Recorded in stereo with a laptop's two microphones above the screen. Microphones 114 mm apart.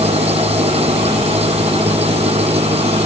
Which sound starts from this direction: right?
An engine running, at 0.0 s.